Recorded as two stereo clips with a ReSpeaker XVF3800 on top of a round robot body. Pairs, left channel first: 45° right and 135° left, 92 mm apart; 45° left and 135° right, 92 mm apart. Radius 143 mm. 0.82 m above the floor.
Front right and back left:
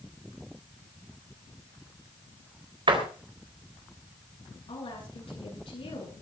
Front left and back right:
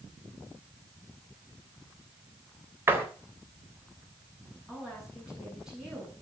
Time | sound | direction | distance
2.9 | a door slam | 160° left | 3.5 m
4.7 | a woman speaking | 50° right | 8 m